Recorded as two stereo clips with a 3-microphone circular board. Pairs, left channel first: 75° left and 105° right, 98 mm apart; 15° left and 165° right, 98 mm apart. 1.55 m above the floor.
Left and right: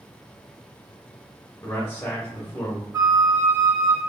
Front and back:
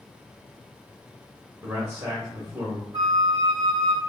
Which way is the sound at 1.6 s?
145° left.